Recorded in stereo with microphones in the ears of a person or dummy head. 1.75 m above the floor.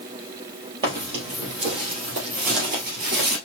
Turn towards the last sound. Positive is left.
turn(degrees=-50)  # may be behind; listen again after turning